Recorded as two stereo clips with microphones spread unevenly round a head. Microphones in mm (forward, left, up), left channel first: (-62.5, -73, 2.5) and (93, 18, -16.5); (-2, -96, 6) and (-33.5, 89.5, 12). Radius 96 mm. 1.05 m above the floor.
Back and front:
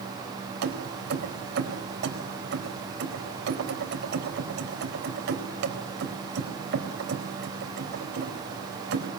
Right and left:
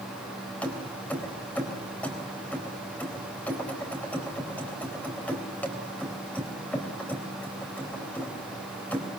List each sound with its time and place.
0.6 s keys jangling: 5° left, 4 m